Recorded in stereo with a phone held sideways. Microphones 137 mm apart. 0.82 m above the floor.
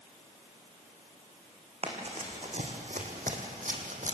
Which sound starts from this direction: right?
Running footsteps, at 1.8 s.